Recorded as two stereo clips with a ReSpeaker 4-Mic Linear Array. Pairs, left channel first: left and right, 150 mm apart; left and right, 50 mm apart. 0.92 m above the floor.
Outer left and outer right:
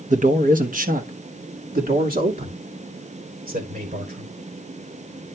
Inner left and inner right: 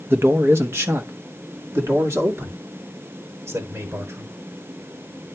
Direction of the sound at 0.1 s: 55° right (ahead or behind).